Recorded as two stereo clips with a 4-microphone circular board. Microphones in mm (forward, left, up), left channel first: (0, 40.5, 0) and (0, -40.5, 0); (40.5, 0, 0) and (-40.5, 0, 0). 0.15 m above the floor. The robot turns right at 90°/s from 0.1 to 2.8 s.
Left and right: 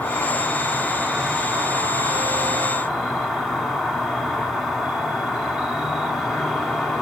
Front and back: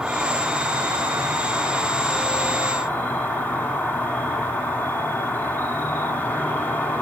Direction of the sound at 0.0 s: 110° left.